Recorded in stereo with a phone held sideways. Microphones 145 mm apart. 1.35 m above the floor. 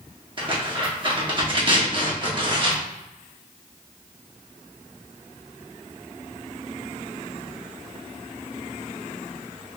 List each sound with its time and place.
0.4 s tearing paper: 35° right (ahead or behind), 1.1 m